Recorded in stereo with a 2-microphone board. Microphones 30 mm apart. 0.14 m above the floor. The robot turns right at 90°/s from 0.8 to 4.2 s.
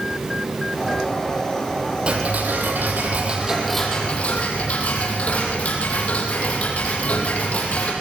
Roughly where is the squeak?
I don't hear a squeak.